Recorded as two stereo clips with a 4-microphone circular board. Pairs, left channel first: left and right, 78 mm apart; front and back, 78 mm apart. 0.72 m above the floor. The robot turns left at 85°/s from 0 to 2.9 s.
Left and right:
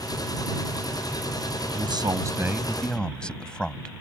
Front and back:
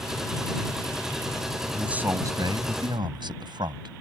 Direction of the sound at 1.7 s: 90° right.